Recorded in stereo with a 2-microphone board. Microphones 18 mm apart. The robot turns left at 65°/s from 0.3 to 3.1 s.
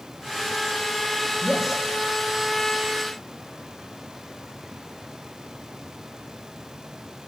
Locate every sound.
1.4 s a man speaking: 5° left (ahead or behind), 6.5 m; by 1.8 s 20° right (ahead or behind), 6.5 m